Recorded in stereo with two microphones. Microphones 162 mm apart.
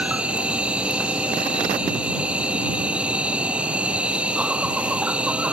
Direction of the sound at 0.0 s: 5° right (ahead or behind).